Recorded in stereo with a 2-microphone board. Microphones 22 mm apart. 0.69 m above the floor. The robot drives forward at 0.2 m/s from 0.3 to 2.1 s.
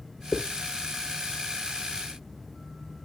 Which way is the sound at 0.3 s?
70° left (ahead or behind).